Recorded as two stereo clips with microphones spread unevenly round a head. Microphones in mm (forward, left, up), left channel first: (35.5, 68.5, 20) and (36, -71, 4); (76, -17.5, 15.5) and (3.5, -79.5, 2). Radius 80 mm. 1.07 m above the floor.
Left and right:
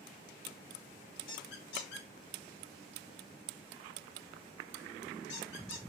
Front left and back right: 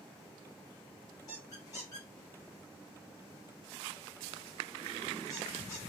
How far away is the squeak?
About 1.7 m.